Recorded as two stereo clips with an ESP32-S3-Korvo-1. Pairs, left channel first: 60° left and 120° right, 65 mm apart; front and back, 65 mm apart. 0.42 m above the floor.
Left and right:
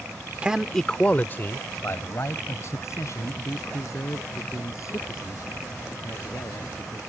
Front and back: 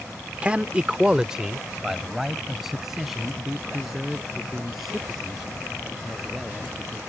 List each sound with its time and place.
0.4 s a man speaking: 155° right; by 7.0 s 90° left